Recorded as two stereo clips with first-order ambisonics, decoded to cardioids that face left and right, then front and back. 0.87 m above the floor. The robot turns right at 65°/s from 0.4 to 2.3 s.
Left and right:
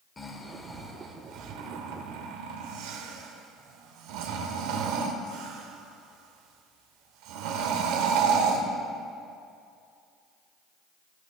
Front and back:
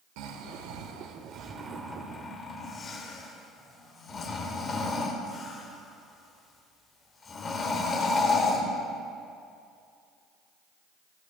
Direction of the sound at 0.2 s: 165° left.